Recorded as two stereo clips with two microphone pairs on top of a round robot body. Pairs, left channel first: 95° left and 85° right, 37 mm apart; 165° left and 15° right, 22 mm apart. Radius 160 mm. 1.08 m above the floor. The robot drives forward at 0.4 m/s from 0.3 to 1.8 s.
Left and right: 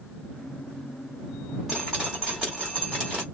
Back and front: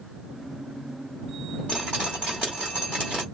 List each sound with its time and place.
1.7 s dripping: 165° right, 0.6 m; by 3.2 s 170° right, 0.7 m